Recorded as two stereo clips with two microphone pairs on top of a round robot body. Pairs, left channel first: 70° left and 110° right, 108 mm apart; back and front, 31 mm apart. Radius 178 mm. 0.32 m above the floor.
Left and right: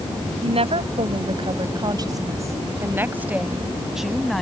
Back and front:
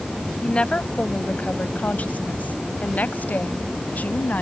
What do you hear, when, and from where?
0.4 s a woman speaking: 130° right; by 4.4 s 160° left